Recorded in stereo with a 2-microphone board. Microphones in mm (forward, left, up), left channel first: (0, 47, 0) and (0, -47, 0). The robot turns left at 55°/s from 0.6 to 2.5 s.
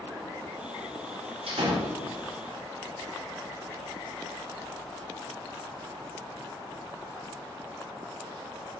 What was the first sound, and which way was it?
A door slam, 90° right.